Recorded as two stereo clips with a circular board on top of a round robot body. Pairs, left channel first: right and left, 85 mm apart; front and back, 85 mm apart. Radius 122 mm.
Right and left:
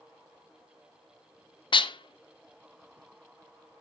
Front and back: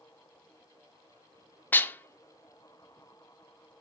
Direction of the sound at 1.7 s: 70° right.